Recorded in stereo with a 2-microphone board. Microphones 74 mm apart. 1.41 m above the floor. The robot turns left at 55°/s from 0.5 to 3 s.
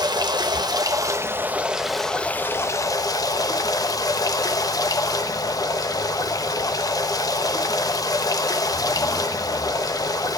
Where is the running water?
100° right, 1.3 m; by 10.4 s 120° left, 1.3 m.